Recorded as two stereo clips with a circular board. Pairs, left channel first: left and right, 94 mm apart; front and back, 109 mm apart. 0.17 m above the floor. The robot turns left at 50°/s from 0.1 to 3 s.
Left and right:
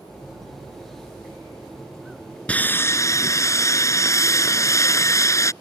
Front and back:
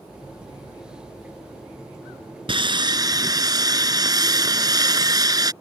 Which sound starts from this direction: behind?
Sawing, at 2.5 s.